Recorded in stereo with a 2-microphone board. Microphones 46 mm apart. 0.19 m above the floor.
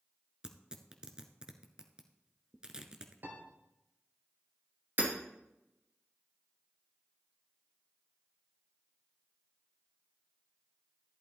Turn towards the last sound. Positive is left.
turn(degrees=-50)  # may be behind; listen again after turning